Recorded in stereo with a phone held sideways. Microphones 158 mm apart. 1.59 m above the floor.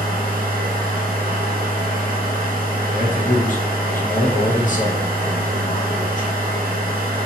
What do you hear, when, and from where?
0.0 s a machine running: 65° right (ahead or behind), 1.0 m
2.9 s a man speaking: 55° left (ahead or behind), 0.7 m